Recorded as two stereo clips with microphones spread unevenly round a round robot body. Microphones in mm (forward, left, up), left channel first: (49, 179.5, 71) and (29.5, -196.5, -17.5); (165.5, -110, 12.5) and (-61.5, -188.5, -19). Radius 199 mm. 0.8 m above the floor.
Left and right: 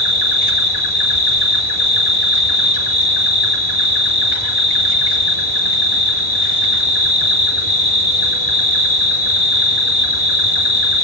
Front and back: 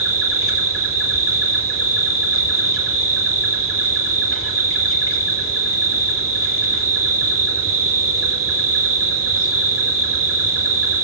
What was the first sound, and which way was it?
An insect, 105° left.